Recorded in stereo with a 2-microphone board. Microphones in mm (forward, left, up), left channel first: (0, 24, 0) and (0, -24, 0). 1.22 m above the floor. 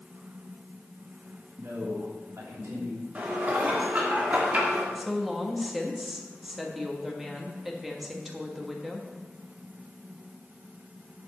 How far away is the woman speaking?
About 1.4 m.